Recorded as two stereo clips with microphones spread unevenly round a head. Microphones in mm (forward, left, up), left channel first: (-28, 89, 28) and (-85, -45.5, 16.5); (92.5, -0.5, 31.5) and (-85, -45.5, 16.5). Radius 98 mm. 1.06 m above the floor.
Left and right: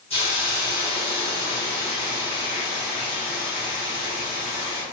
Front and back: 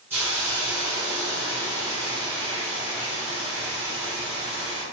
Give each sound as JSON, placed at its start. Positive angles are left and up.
{"t": 0.1, "sound": "a hiss", "azimuth_deg": 115, "distance_m": 1.7}